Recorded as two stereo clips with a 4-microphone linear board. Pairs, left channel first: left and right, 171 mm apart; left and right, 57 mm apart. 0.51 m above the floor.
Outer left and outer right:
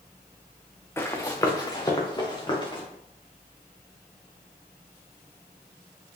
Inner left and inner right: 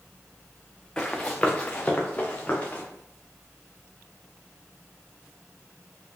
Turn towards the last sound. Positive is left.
turn(degrees=25)  # may be behind; listen again after turning